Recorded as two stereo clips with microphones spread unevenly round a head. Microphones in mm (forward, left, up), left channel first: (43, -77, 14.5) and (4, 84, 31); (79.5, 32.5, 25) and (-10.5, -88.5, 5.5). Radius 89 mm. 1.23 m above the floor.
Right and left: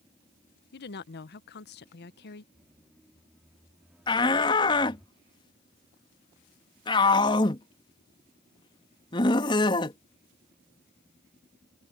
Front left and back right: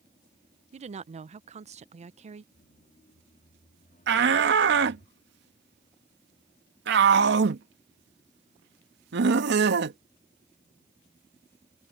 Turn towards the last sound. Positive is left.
turn(degrees=-145)